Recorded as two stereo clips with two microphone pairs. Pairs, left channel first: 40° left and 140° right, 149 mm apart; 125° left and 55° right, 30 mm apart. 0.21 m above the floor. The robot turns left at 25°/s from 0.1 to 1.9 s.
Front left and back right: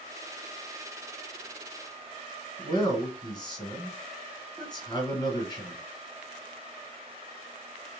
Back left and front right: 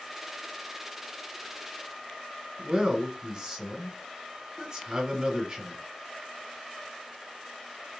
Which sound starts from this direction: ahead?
A man speaking, at 2.6 s.